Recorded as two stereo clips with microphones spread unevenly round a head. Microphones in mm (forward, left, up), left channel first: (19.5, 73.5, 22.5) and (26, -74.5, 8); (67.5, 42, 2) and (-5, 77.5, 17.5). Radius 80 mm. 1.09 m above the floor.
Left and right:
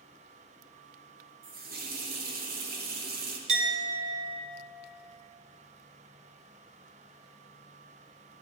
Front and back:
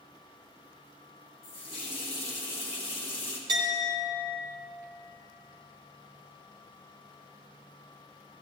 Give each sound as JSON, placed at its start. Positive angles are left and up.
{"t": 1.4, "sound": "a running tap", "azimuth_deg": -60, "distance_m": 1.1}
{"t": 3.5, "sound": "a clink", "azimuth_deg": -140, "distance_m": 1.2}